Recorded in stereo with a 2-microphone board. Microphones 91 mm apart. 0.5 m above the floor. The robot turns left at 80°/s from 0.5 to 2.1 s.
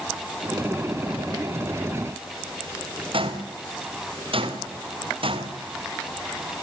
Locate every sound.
3.1 s footsteps: 75° right (ahead or behind), 3.5 m